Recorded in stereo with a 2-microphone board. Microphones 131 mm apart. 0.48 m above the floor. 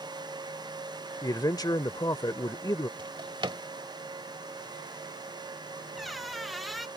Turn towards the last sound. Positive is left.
turn(degrees=0)  # may be behind; listen again after turning